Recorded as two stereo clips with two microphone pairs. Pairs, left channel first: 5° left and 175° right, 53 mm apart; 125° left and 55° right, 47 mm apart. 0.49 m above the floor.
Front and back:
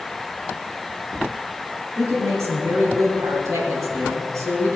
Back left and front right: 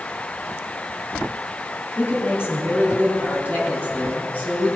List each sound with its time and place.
2.0 s a woman speaking: 160° left, 4 m; by 4.8 s straight behind, 5 m